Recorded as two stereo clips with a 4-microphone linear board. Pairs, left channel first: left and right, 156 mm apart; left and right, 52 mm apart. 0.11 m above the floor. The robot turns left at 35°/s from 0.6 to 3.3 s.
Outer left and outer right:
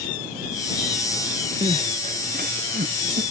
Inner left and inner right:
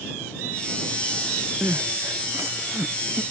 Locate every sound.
1.6 s crying: 40° right (ahead or behind); by 3.2 s 80° right